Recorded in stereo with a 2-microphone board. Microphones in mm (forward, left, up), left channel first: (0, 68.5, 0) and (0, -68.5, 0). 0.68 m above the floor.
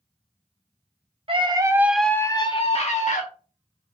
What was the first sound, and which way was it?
A scream, 40° right (ahead or behind).